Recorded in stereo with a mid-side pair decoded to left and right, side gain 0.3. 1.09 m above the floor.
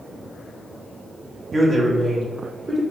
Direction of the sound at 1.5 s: 45° right.